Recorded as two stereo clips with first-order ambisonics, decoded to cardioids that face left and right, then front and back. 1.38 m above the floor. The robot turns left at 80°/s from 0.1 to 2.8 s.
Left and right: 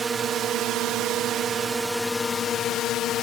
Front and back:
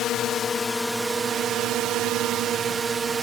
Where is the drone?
25° right; by 3.2 s 115° left.